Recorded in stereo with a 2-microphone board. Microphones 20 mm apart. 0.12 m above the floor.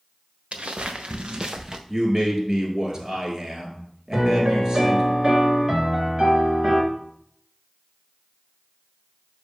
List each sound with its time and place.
0.5 s footsteps: 75° right (ahead or behind), 1.1 m; by 1.8 s 25° right (ahead or behind), 0.9 m
1.9 s a man speaking: 35° right (ahead or behind), 1.8 m
4.1 s a piano: 35° right (ahead or behind), 1.7 m